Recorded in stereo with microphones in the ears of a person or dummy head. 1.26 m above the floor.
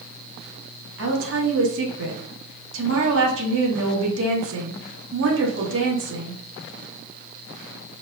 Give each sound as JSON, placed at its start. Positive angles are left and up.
{"t": 1.0, "sound": "a woman speaking", "side_deg": -75, "distance_m": 0.9}